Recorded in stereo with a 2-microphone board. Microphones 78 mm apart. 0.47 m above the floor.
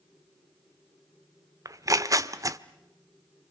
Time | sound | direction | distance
1.6 | tearing paper | 45° right (ahead or behind) | 0.9 m